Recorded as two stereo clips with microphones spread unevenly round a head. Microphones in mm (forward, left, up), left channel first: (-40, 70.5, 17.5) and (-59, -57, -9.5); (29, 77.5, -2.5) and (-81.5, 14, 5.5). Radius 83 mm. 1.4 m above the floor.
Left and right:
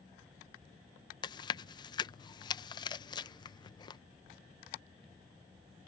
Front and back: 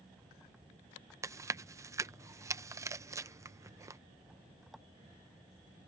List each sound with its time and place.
1.2 s chewing: 140° left